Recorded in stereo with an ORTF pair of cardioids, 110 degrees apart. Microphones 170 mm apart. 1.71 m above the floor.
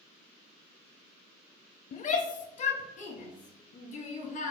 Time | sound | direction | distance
1.9 | a shout | 45° left | 0.7 m